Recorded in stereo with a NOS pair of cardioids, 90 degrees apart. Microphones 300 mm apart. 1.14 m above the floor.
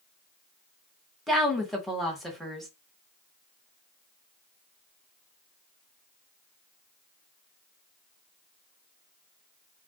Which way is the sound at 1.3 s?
Straight ahead.